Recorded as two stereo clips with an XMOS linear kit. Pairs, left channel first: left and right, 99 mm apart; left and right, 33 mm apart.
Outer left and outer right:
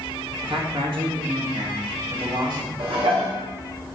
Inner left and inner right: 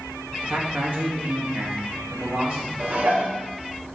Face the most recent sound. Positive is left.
turn(degrees=-75)  # may be behind; listen again after turning